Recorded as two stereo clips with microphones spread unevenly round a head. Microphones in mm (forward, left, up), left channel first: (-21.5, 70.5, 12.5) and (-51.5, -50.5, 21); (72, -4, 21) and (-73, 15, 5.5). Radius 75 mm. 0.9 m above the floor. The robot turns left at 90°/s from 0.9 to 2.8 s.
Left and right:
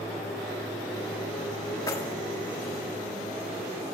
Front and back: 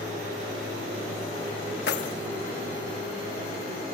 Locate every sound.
1.9 s keys jangling: 10° left, 1.2 m; by 2.1 s 15° right, 1.2 m